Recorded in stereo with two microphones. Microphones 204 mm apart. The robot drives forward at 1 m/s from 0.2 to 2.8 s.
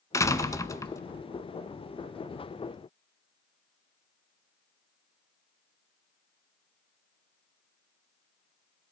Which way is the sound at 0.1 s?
15° left (ahead or behind).